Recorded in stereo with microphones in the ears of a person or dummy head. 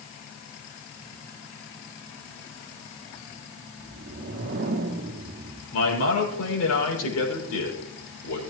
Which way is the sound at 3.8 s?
55° right (ahead or behind).